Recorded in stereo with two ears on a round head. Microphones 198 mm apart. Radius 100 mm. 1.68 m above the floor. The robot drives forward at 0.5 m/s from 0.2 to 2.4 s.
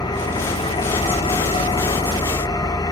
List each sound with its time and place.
0.0 s an engine running: 20° left (ahead or behind), 1.0 m